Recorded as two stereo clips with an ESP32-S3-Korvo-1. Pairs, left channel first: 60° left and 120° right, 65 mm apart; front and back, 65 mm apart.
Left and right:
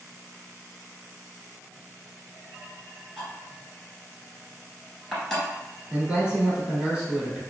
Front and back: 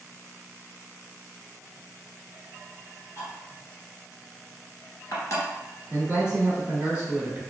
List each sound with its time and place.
3.2 s cutlery clinking: 30° right, 1.4 m
5.9 s a man speaking: 140° right, 1.2 m